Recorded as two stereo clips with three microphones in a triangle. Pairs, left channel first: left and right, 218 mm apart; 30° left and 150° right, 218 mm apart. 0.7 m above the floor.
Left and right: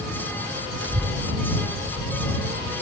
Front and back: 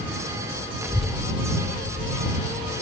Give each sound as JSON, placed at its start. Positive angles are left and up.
{"t": 0.8, "sound": "a child speaking", "azimuth_deg": -75}